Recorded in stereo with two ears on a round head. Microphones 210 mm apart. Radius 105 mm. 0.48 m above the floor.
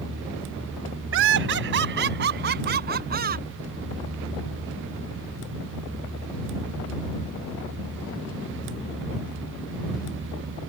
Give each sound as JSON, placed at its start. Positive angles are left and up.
{"t": 1.1, "sound": "laughter", "side_deg": -60}